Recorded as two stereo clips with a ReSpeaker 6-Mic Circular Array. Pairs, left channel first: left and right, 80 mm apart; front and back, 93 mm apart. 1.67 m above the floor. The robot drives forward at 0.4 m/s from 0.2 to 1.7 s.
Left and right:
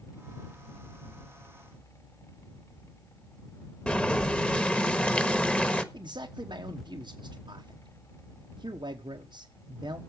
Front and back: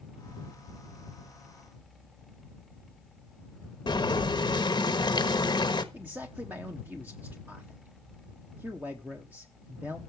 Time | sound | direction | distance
3.9 | boiling | 20° left | 1.2 m
5.9 | a man speaking | 110° right | 1.1 m